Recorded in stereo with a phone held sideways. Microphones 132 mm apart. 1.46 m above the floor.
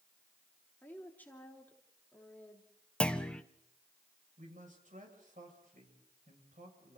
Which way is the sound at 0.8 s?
15° left (ahead or behind).